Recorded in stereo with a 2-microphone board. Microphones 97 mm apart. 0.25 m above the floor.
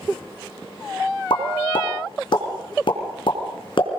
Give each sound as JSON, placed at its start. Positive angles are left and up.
{"t": 1.3, "sound": "a pop", "side_deg": 60, "distance_m": 3.0}